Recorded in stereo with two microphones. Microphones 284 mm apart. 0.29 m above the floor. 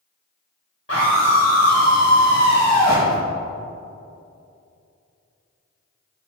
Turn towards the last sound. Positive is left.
turn(degrees=30)  # may be behind; listen again after turning